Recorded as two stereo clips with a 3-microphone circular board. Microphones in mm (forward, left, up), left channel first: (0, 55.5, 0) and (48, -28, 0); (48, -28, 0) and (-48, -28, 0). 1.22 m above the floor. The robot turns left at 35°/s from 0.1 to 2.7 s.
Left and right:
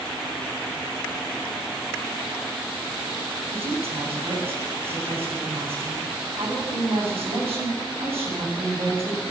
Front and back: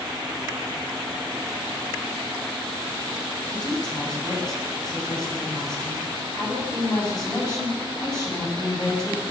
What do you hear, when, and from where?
3.5 s a woman speaking: 45° right, 8.5 m